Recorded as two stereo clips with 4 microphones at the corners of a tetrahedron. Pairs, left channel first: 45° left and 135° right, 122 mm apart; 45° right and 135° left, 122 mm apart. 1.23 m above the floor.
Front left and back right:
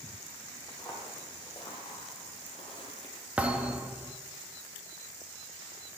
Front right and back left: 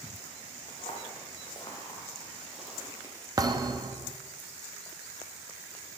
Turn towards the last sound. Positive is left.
turn(degrees=160)